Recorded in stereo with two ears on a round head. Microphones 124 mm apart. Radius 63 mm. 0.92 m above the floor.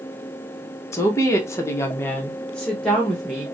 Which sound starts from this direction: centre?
A woman speaking, at 0.9 s.